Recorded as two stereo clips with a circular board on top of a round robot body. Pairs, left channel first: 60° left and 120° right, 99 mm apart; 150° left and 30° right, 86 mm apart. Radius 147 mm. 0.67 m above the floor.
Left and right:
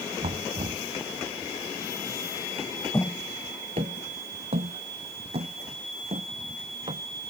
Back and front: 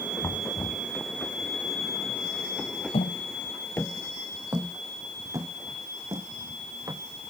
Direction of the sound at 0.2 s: 145° right.